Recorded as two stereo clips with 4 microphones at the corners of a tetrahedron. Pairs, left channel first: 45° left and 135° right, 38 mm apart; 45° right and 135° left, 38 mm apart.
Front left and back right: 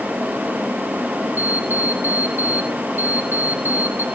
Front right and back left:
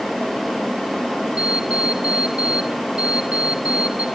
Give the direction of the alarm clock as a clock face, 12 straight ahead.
6 o'clock.